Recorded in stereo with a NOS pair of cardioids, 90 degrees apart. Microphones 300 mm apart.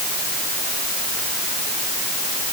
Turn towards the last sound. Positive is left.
No sound to turn to.